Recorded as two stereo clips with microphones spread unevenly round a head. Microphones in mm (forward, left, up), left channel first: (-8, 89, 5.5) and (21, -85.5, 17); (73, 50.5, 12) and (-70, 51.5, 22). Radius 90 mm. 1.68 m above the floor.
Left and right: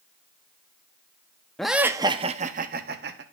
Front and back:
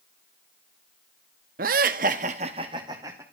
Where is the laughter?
170° right, 0.8 m; by 3.2 s 105° right, 1.3 m.